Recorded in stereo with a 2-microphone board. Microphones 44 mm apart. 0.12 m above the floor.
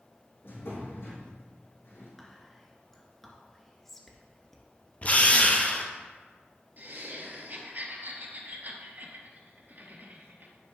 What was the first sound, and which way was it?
A drawer, 60° left (ahead or behind).